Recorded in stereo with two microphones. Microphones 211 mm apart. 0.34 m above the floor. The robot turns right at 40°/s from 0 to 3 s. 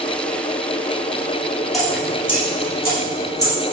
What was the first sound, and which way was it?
Dripping, centre (ahead or behind).